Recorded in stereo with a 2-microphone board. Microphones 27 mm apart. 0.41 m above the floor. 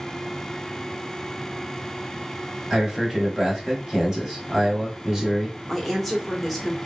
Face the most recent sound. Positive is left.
turn(degrees=0)  # may be behind; listen again after turning